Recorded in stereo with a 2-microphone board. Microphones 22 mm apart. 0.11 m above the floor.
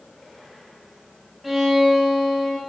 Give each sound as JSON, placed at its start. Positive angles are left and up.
{"t": 1.4, "sound": "a violin", "side_deg": -10, "distance_m": 8.0}